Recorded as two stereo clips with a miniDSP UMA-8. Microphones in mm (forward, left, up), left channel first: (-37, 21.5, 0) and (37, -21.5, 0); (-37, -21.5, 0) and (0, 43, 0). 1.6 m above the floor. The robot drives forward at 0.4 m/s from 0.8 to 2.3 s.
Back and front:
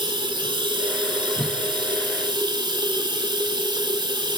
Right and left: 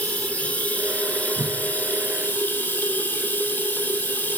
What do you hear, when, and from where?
0.0 s running water: 50° right, 4 m; by 4.4 s 55° right, 4 m
1.4 s a whoosh: 65° left, 1.2 m